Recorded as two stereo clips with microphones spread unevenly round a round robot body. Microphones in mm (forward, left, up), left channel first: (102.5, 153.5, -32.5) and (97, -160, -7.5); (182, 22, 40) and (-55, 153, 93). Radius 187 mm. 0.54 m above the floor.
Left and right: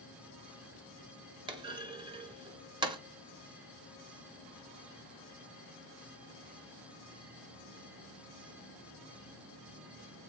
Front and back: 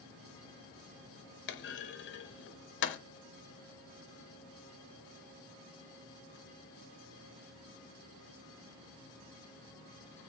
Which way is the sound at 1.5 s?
15° right.